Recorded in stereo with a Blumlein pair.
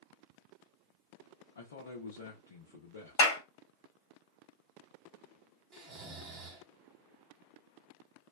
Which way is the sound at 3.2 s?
50° left.